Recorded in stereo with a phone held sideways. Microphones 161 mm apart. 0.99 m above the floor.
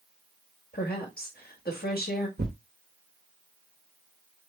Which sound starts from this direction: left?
A woman speaking, at 0.7 s.